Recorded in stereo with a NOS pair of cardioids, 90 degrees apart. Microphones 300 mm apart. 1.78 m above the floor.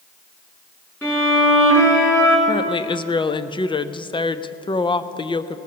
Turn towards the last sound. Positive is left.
turn(degrees=15)